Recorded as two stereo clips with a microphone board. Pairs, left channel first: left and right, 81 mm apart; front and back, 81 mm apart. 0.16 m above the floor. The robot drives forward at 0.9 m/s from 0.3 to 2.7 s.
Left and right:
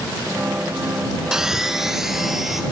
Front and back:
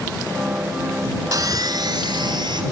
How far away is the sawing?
About 0.8 m.